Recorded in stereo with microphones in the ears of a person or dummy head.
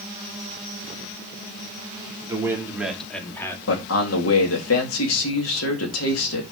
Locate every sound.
2.3 s a man speaking: 10° right (ahead or behind), 3 m; by 3.6 s 25° left (ahead or behind), 2.5 m
3.7 s a man speaking: 75° left (ahead or behind), 2.5 m